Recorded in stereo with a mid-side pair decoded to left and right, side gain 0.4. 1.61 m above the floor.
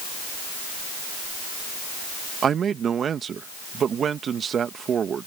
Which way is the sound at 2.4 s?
55° right.